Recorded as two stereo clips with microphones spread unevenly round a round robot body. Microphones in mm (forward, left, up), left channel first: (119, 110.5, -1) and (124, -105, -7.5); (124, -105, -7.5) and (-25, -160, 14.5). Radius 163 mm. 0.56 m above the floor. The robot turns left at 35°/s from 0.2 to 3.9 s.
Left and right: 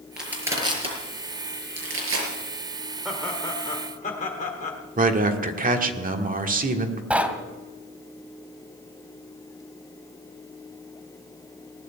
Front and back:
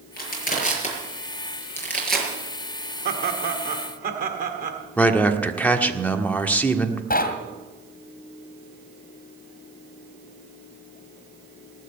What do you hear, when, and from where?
0.2 s crushing: straight ahead, 5.5 m; by 2.3 s 75° right, 5.5 m
3.0 s laughter: 175° right, 1.3 m; by 4.8 s 155° left, 1.3 m
5.0 s a man speaking: 55° right, 1.6 m
7.1 s knocking: 5° right, 2.5 m